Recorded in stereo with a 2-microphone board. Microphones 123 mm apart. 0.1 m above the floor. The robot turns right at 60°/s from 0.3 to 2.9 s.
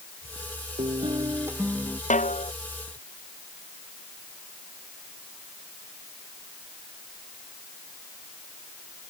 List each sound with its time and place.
0.8 s a guitar: 60° right; by 2.0 s 10° left
2.1 s a snare drum: 85° left; by 2.5 s 65° left (ahead or behind)